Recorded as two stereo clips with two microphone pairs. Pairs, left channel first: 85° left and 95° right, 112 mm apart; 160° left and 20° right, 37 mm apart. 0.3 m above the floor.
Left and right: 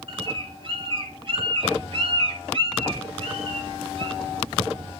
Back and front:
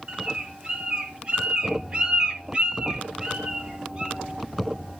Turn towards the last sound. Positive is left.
turn(degrees=-80)